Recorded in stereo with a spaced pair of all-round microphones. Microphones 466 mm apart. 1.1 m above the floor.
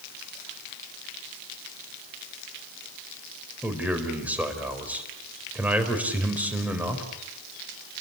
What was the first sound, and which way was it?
A man speaking, 5° right (ahead or behind).